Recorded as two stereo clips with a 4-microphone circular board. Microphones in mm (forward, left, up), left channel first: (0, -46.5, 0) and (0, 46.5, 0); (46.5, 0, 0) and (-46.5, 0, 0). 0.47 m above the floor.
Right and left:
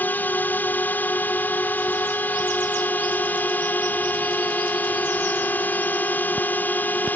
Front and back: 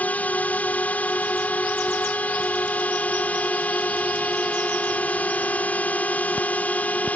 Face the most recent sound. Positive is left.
turn(degrees=-50)